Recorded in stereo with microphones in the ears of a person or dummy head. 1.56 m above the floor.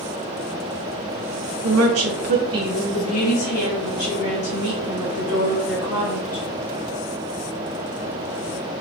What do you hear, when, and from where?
1.6 s a woman speaking: 75° right (ahead or behind), 0.8 m; by 6.4 s 60° left (ahead or behind), 2.5 m